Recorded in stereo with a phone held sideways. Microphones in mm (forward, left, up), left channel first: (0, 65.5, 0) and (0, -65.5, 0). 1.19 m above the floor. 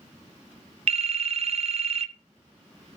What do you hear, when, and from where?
0.9 s a phone ringing: 50° right (ahead or behind), 0.6 m